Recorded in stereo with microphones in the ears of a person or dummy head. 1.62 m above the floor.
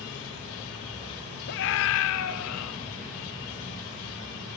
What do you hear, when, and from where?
1.5 s a scream: 65° left (ahead or behind), 1.7 m; by 2.7 s 80° left, 1.6 m